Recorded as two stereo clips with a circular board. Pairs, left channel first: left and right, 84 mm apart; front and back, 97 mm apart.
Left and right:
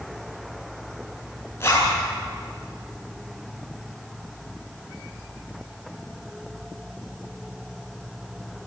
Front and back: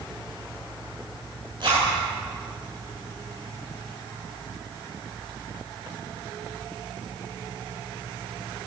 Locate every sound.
1.6 s a zipper: 150° left, 9 m